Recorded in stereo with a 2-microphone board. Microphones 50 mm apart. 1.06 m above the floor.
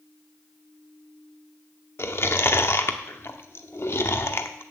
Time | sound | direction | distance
2.0 | chewing | 55° left (ahead or behind) | 1.0 m